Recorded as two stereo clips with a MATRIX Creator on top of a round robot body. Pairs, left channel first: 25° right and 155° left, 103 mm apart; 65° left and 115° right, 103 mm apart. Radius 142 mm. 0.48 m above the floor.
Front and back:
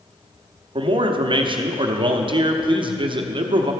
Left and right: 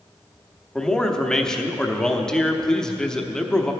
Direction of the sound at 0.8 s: 150° left.